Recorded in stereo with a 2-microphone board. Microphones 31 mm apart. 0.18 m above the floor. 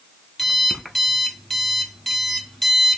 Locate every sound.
0.4 s an alarm clock: centre (ahead or behind), 0.6 m